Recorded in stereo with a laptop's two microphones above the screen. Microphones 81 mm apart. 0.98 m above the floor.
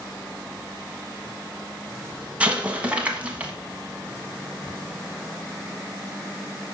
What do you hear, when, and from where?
2.4 s an explosion: 15° right (ahead or behind), 1.2 m